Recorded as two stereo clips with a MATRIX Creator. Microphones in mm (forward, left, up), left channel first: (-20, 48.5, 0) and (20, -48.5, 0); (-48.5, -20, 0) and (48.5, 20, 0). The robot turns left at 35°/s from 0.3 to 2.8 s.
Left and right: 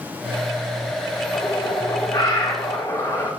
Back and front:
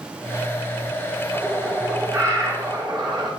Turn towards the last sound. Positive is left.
turn(degrees=60)